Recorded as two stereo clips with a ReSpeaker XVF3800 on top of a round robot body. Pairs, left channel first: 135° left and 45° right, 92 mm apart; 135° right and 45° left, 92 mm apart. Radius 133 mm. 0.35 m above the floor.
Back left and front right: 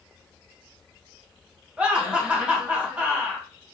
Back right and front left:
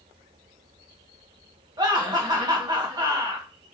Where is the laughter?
30° left, 1.5 m.